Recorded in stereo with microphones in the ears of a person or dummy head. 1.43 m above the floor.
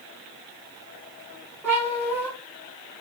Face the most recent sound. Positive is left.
turn(degrees=0)  # may be behind; listen again after turning